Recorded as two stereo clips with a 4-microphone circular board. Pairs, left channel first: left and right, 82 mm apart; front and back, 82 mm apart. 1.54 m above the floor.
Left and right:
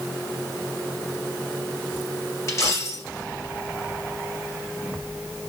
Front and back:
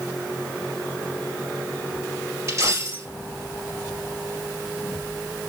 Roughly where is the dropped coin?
Behind left.